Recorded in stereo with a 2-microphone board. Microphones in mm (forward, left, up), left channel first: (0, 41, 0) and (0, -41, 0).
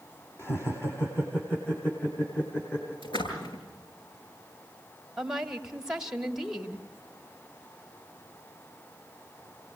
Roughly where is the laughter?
Left.